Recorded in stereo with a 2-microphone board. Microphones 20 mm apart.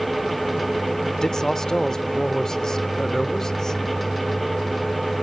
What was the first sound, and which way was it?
A man speaking, 25° left (ahead or behind).